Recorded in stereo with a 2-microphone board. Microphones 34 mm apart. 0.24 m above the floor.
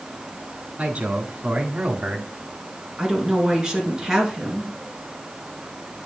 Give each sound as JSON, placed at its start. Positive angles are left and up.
{"t": 0.8, "sound": "a man speaking", "side_deg": -40, "distance_m": 2.0}
{"t": 3.0, "sound": "a woman speaking", "side_deg": -15, "distance_m": 3.5}